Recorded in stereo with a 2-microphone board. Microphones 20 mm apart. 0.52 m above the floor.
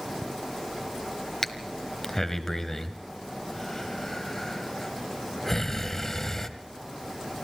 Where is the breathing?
15° left (ahead or behind), 1.3 m.